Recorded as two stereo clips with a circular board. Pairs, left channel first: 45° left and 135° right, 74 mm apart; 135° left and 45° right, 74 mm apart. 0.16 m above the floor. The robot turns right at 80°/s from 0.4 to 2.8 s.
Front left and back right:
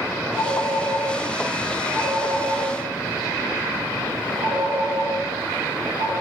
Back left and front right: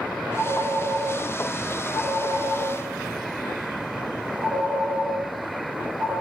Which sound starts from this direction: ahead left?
A phone ringing, at 0.4 s.